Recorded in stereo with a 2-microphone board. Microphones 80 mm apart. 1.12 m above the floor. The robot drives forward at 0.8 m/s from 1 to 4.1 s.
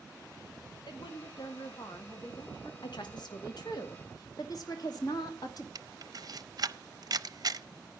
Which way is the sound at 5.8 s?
55° right (ahead or behind).